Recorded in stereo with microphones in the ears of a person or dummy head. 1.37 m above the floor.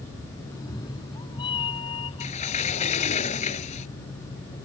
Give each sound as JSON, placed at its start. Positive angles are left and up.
{"t": 0.5, "sound": "a cat meowing", "side_deg": 25}
{"t": 2.2, "sound": "a sliding door", "side_deg": 40}